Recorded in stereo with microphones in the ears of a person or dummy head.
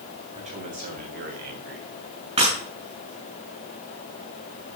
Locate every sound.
0.3 s a man speaking: 40° right (ahead or behind), 3.5 m; by 1.9 s 70° right (ahead or behind), 2 m
2.4 s breaking glass: 35° right (ahead or behind), 7.5 m